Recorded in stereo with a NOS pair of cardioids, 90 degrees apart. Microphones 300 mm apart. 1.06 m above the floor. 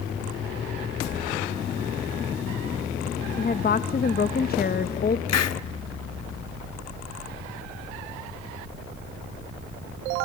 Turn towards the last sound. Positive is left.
turn(degrees=60)